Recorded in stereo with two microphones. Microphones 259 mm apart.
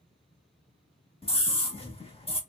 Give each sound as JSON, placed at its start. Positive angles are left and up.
{"t": 1.2, "sound": "a scream", "side_deg": 20, "distance_m": 0.9}